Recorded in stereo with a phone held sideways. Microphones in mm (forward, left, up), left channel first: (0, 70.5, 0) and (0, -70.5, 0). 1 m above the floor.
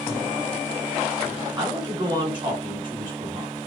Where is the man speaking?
30° right (ahead or behind), 2.5 m.